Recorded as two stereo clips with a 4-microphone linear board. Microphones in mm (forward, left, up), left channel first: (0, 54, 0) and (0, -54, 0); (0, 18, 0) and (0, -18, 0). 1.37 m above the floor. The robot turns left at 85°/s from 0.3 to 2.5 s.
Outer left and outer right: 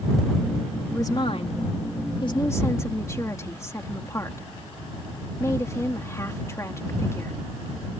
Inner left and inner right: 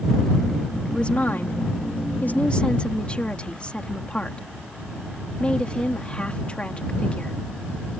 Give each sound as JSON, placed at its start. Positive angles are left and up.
{"t": 0.9, "sound": "a woman speaking", "azimuth_deg": 160}